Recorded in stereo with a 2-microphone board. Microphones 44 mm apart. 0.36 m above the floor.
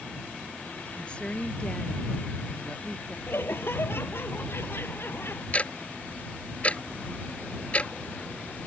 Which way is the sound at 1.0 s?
25° left (ahead or behind).